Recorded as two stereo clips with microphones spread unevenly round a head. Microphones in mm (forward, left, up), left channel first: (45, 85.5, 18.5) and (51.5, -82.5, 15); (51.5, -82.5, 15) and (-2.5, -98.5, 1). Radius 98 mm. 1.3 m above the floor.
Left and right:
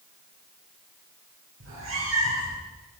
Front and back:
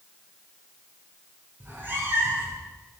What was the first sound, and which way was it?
A cat meowing, 110° right.